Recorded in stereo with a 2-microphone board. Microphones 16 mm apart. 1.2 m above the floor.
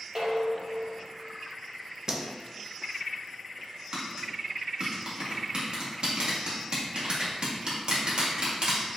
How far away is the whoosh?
About 0.7 m.